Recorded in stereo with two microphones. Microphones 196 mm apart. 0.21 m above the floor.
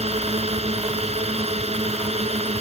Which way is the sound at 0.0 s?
30° right (ahead or behind).